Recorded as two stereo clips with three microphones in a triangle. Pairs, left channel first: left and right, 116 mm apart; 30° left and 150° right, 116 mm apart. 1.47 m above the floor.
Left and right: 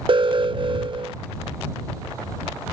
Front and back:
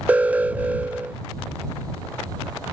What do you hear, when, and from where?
0.1 s an alarm: 75° right